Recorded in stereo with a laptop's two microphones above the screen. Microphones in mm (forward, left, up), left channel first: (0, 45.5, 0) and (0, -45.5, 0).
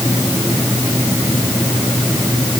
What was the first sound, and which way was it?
Only background noise.